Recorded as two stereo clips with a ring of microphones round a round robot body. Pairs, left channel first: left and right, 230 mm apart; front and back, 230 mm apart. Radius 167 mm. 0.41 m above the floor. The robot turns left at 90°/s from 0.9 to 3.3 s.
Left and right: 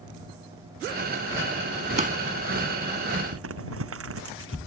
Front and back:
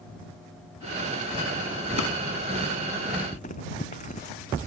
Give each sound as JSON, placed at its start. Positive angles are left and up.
{"t": 2.0, "sound": "a drawer", "azimuth_deg": -30}
{"t": 3.3, "sound": "crumpling", "azimuth_deg": -70}